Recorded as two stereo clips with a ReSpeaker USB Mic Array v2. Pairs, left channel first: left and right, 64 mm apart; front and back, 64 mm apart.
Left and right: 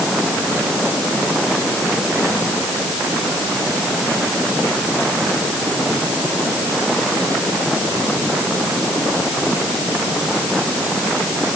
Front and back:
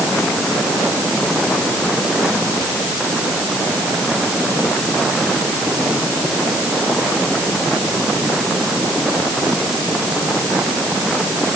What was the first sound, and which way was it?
Only background noise.